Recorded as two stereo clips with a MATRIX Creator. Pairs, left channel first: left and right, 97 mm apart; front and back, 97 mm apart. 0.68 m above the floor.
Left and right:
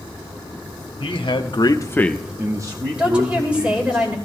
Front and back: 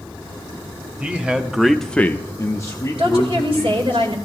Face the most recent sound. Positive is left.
turn(degrees=-165)